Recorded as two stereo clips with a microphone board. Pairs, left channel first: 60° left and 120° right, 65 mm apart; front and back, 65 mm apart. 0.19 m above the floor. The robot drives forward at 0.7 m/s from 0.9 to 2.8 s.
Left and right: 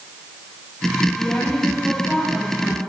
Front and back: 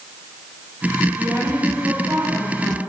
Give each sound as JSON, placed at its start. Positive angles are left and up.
{"t": 1.2, "sound": "a woman speaking", "azimuth_deg": 140, "distance_m": 6.0}